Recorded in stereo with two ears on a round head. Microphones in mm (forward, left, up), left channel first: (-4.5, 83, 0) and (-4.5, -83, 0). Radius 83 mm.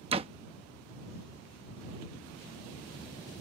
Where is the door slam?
30° right (ahead or behind).